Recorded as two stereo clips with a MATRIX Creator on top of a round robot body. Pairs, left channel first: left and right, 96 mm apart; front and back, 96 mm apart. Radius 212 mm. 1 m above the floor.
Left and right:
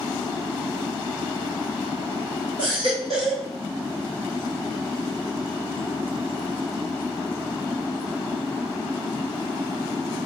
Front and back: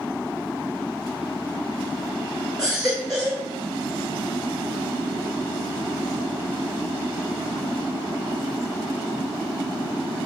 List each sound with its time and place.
2.6 s a baby crying: 95° left, 0.5 m